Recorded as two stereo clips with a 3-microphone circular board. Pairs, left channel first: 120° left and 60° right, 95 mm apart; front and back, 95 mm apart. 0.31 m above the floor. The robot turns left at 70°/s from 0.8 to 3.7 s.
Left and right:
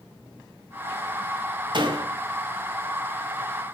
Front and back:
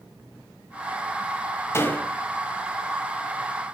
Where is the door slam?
55° right, 1.2 m; by 2.1 s 80° right, 1.2 m.